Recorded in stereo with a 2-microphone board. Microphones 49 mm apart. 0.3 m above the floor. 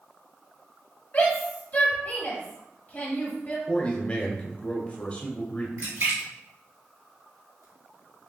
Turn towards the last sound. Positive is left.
turn(degrees=-75)  # may be behind; listen again after turning